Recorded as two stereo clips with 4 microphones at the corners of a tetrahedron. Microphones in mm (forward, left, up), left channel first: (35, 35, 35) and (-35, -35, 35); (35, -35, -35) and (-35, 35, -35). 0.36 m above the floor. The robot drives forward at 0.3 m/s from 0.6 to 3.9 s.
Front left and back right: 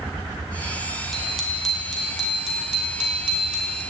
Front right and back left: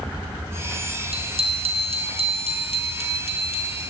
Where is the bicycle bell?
135° left, 2.5 m; by 3.8 s 145° left, 3 m.